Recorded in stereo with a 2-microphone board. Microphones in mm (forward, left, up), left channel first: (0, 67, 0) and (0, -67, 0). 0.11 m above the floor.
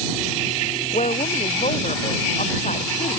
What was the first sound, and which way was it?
A woman speaking, 60° left (ahead or behind).